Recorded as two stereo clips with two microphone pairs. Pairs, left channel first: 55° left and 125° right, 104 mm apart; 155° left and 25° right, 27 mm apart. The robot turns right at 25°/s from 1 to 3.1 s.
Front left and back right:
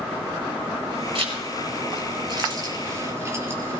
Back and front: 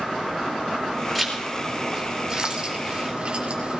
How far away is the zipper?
About 4 m.